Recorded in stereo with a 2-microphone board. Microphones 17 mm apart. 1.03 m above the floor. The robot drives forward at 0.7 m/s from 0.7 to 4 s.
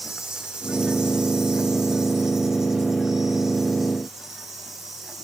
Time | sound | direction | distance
0.0 | an insect | 55° right (ahead or behind) | 1.0 m